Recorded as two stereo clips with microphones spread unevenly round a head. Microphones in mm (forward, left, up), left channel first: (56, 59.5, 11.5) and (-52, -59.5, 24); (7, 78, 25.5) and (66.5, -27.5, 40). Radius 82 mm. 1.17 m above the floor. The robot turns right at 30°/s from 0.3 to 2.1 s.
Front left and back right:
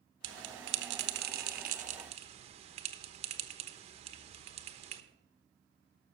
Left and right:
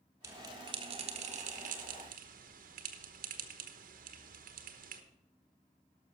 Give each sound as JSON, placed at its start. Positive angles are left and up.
{"t": 0.2, "sound": "a bell", "azimuth_deg": -130, "distance_m": 1.1}